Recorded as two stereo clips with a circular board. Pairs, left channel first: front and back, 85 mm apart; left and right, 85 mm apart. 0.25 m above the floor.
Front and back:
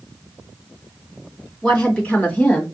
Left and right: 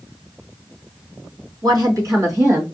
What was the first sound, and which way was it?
A woman speaking, 75° right.